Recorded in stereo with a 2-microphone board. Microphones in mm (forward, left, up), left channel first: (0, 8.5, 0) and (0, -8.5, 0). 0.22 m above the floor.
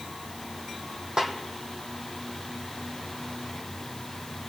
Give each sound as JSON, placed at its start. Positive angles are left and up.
{"t": 1.2, "sound": "a snare drum", "side_deg": -40, "distance_m": 2.5}